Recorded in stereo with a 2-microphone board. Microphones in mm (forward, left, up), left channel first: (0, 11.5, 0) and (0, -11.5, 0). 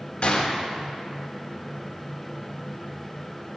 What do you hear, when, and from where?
0.2 s a gunshot: 55° left (ahead or behind), 1.3 m